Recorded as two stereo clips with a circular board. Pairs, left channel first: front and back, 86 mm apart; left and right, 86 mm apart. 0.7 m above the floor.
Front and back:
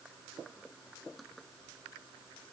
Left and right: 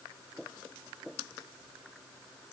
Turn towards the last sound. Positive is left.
No sound to turn to.